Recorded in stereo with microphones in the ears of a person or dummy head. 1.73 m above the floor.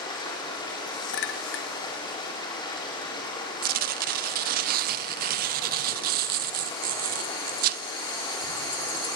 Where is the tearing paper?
50° right (ahead or behind), 0.6 m.